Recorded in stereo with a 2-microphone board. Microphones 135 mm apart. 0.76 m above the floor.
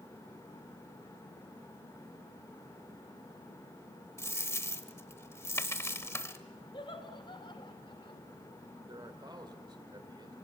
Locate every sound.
4.2 s a dropped coin: 20° left (ahead or behind), 1.0 m
6.7 s laughter: 40° left (ahead or behind), 2.5 m
8.9 s a man speaking: 35° right (ahead or behind), 3 m